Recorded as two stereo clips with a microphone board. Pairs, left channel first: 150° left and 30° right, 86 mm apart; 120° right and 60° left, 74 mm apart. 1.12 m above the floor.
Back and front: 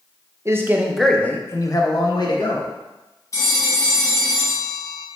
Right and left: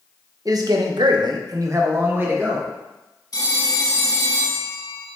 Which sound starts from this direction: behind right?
A phone ringing, at 3.3 s.